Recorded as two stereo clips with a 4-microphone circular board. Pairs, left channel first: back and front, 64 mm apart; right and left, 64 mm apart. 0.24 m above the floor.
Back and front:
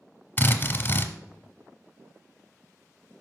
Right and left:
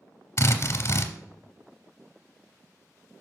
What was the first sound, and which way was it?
A drill, 125° right.